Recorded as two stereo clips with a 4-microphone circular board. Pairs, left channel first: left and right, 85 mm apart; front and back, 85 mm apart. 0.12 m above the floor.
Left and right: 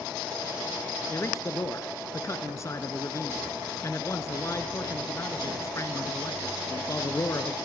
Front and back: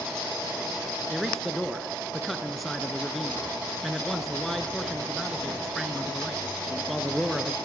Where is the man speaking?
90° left, 2 m.